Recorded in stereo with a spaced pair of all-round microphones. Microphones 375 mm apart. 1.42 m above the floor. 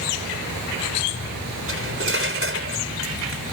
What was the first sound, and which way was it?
Cutlery clinking, 35° right (ahead or behind).